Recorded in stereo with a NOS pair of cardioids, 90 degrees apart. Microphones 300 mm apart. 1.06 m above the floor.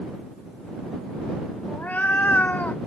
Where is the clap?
No clap in this recording.